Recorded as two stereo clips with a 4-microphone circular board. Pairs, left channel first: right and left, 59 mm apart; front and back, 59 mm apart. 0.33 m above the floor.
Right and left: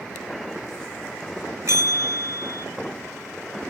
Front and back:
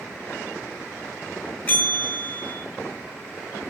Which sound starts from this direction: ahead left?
A bell, at 1.7 s.